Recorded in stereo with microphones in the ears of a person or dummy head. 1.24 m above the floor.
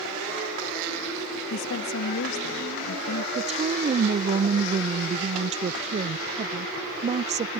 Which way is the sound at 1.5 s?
75° left (ahead or behind).